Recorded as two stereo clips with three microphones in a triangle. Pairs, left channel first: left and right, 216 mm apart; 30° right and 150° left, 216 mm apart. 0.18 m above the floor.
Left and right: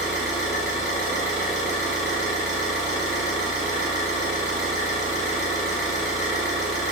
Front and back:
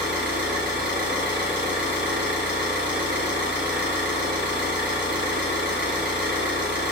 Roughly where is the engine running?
Ahead.